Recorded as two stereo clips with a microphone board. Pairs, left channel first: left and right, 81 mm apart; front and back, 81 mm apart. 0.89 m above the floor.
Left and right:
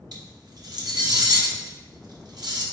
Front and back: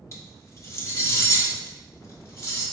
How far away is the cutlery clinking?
About 0.9 m.